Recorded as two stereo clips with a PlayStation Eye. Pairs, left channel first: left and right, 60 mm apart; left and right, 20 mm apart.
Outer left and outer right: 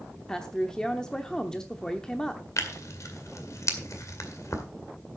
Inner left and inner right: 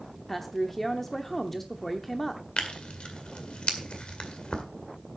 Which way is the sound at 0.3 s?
10° left (ahead or behind).